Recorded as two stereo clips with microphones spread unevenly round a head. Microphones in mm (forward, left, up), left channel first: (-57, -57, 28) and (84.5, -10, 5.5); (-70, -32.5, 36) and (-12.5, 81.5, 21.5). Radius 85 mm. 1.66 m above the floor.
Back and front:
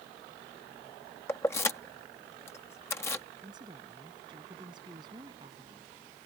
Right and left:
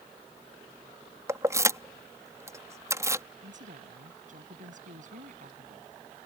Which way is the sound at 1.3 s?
130° left.